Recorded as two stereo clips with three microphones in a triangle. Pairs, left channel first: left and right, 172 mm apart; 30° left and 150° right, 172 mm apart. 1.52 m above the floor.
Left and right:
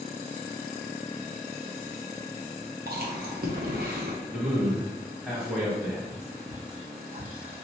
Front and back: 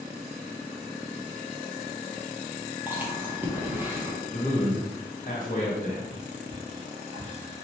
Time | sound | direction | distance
2.9 | chewing | 70° right | 0.8 m
4.3 | a man speaking | 5° right | 1.2 m
6.1 | whispering | 140° right | 1.7 m